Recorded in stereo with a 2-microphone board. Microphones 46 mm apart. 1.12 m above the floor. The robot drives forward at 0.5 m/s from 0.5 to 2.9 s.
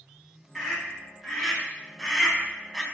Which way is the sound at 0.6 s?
Centre (ahead or behind).